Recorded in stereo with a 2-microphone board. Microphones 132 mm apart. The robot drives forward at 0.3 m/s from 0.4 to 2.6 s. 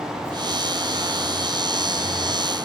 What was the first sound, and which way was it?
Only background noise.